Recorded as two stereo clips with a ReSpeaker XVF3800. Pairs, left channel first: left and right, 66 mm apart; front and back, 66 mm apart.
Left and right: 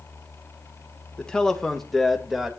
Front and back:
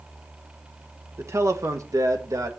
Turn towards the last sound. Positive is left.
turn(degrees=-175)